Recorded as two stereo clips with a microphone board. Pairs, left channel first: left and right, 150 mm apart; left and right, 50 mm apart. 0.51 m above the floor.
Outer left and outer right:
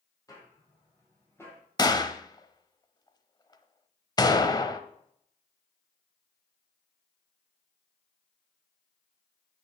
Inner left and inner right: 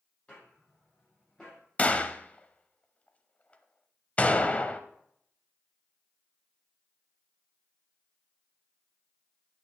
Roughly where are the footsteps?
Left.